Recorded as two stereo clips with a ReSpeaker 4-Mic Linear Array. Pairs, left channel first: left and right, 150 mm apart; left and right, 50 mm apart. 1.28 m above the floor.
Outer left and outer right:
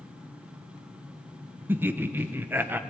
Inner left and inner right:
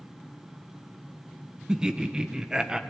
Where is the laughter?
15° right (ahead or behind), 1.1 m.